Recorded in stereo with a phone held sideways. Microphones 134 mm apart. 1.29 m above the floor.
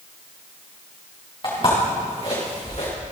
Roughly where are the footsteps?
Left.